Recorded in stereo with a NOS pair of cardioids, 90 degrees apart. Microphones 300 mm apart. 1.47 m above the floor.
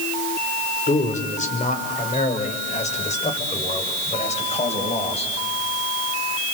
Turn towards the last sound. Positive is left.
turn(degrees=20)